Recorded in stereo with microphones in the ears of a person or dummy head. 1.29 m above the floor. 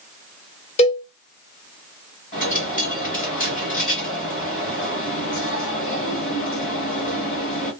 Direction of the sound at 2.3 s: 40° left (ahead or behind).